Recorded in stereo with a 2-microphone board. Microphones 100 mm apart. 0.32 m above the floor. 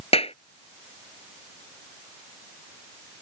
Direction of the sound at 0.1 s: 80° left.